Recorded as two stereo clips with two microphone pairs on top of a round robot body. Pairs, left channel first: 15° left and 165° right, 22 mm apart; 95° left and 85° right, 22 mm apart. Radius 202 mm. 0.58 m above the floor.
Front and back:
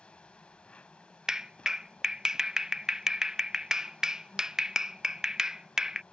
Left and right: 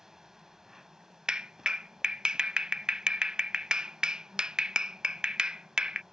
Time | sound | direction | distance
0.0 | an insect | 15° right | ?
1.3 | a clap | 105° right | ?